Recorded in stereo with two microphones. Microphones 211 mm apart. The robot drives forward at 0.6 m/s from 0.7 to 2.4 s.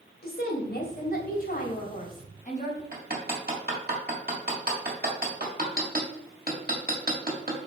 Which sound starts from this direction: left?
A woman speaking, at 0.2 s.